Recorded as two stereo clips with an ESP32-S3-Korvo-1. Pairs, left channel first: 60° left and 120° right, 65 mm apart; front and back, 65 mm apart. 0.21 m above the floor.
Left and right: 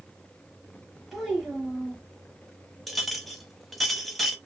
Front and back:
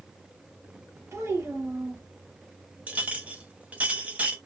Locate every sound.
1.1 s a child speaking: 150° left, 1.1 m
2.9 s a clink: 145° left, 0.6 m